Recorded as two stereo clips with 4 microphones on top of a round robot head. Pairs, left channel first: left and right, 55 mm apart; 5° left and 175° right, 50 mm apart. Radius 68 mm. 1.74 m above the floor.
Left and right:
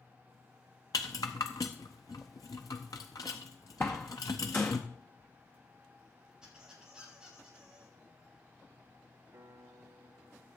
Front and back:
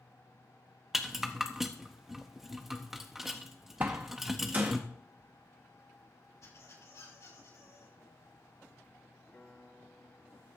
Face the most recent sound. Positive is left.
turn(degrees=-60)